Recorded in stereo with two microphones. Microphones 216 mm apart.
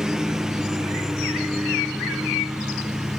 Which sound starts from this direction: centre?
A lawn mower, at 0.0 s.